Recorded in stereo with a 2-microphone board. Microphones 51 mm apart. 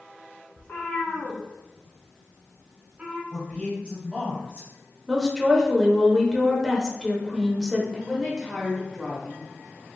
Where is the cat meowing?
45° left (ahead or behind), 1.7 m; by 3.2 s 30° right (ahead or behind), 1.0 m.